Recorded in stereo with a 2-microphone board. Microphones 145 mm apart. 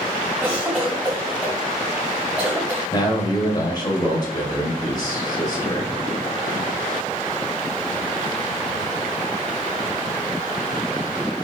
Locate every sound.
0.4 s a cough: 10° right (ahead or behind), 2.0 m
2.9 s a man speaking: 25° left (ahead or behind), 1.1 m